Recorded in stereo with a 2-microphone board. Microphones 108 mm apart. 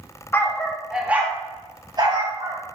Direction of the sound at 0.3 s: 20° left (ahead or behind).